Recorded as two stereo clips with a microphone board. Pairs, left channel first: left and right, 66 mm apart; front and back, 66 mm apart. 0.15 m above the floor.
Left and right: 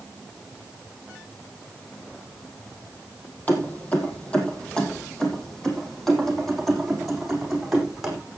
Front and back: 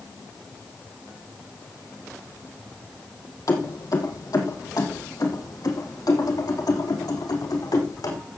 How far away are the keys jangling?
About 3.5 m.